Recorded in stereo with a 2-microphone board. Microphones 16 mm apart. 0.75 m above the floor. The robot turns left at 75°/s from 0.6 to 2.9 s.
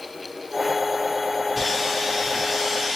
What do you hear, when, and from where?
1.6 s sawing: centre (ahead or behind), 1.1 m; by 3.0 s 20° right (ahead or behind), 1.1 m